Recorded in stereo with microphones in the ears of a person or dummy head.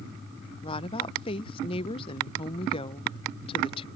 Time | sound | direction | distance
0.6 | a woman speaking | 25° left (ahead or behind) | ?